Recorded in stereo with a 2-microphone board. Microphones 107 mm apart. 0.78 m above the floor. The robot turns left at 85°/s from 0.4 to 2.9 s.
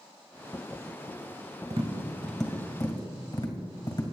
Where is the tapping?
60° right (ahead or behind), 1.9 m; by 4.0 s 40° left (ahead or behind), 1.9 m.